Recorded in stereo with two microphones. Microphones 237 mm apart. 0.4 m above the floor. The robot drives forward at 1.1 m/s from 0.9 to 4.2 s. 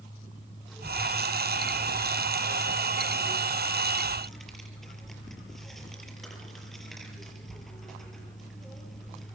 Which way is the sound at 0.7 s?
Centre (ahead or behind).